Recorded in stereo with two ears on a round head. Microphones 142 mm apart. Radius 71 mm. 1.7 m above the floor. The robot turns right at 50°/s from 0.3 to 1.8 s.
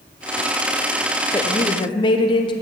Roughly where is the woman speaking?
Centre.